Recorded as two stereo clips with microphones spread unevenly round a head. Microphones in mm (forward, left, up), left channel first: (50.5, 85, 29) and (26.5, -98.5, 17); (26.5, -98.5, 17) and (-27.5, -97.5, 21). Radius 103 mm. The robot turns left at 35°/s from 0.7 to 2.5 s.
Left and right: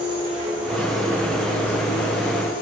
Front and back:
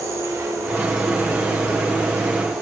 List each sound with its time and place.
0.0 s an insect: 165° right, 2.5 m; by 2.6 s 135° left, 2.5 m